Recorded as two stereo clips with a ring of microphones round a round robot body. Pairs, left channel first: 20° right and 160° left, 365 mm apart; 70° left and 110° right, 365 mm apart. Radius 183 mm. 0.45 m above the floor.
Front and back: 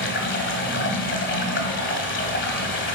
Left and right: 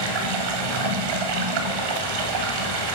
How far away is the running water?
About 1.5 m.